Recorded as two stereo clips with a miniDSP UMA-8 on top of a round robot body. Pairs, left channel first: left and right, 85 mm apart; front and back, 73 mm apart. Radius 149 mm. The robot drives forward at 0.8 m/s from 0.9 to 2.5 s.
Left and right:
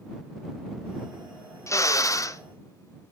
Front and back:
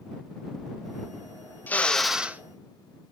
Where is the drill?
55° left, 0.9 m; by 2.4 s 125° left, 0.8 m.